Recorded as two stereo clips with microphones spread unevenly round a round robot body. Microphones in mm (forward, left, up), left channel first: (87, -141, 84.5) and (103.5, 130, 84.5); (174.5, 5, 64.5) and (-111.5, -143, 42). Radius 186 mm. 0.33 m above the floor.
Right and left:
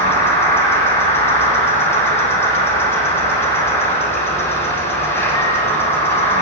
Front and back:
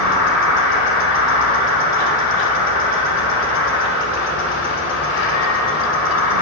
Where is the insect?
10° right, 1.7 m.